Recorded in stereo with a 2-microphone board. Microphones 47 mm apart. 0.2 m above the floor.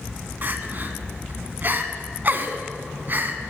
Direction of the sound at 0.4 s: 40° right (ahead or behind).